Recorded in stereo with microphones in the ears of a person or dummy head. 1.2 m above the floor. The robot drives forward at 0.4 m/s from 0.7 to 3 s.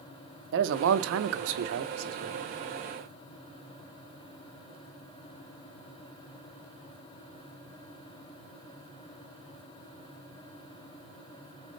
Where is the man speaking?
65° right (ahead or behind), 0.6 m; by 2.5 s 45° right (ahead or behind), 0.7 m.